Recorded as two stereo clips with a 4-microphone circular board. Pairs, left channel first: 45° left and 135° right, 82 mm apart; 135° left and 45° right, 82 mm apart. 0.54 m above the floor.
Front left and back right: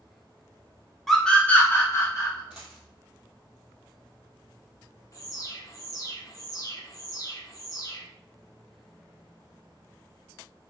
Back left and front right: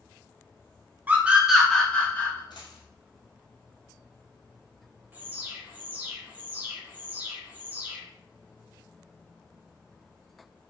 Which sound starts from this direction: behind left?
A dropped coin, at 2.5 s.